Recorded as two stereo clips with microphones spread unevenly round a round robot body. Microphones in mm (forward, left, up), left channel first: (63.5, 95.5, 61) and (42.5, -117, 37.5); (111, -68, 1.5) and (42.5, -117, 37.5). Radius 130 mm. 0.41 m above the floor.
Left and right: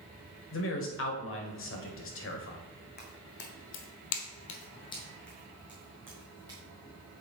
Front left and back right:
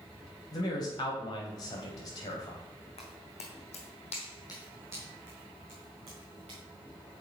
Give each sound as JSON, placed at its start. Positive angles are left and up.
{"t": 0.5, "sound": "a man speaking", "azimuth_deg": 60, "distance_m": 1.7}
{"t": 3.0, "sound": "footsteps", "azimuth_deg": 40, "distance_m": 1.8}